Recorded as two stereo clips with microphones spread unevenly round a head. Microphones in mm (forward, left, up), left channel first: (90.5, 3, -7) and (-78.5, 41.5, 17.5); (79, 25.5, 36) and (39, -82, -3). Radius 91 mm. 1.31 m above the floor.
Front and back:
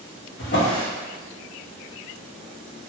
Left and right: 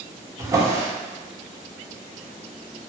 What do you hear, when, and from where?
0.4 s a drawer: 40° right, 0.9 m